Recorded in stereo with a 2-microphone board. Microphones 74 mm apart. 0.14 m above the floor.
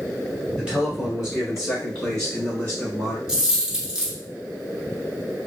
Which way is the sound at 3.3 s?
10° right (ahead or behind).